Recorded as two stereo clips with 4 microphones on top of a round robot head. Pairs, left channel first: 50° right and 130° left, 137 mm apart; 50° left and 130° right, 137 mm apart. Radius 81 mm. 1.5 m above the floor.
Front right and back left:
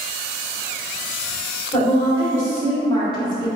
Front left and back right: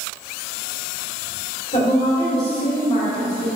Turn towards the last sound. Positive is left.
turn(degrees=5)